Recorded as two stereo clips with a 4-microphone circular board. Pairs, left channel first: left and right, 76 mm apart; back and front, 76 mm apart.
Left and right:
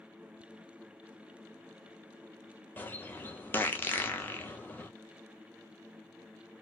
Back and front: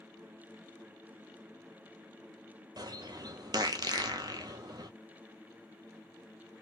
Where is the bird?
25° left, 0.7 m.